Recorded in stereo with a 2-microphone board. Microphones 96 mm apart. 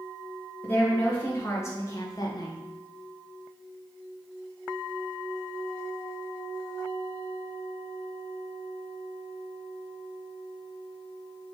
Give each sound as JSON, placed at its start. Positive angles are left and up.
{"t": 0.6, "sound": "a woman speaking", "side_deg": 20, "distance_m": 1.6}